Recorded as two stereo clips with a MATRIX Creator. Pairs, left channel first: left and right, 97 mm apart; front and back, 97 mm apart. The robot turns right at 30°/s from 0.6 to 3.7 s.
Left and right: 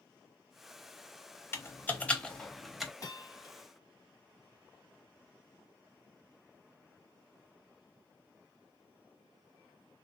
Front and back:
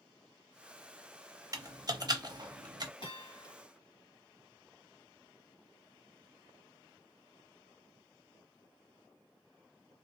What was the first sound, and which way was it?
Typing on a keyboard, 145° left.